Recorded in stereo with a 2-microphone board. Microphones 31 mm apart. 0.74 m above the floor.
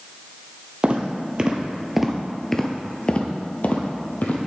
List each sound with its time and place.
0.8 s footsteps: 40° right (ahead or behind), 1.1 m; by 4.4 s 60° left (ahead or behind), 1.3 m